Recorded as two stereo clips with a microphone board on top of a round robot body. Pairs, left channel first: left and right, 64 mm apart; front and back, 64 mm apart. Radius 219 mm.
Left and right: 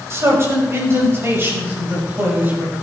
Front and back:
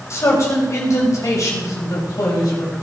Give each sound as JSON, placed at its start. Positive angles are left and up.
{"t": 0.1, "sound": "a man speaking", "azimuth_deg": -45, "distance_m": 5.0}